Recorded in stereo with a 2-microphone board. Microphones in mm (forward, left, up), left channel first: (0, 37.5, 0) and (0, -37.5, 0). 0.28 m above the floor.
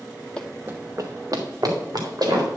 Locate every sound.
0.4 s running footsteps: 15° left (ahead or behind), 0.6 m; by 2.5 s 65° right (ahead or behind), 3.5 m